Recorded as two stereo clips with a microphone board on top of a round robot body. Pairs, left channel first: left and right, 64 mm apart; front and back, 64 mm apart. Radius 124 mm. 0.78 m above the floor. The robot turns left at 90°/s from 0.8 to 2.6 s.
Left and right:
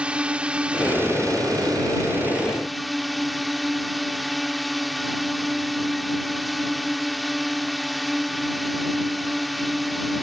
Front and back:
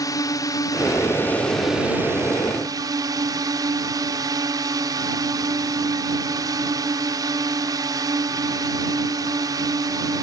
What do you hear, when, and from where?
0.0 s a drone: 15° right; by 10.2 s straight behind